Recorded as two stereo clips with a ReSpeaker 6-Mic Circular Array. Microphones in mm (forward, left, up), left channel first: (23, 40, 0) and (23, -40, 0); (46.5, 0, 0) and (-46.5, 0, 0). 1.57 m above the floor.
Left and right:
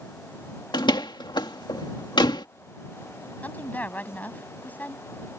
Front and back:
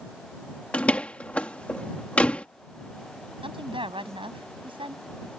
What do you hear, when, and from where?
0.7 s a door slam: 75° left
3.4 s a woman speaking: 160° left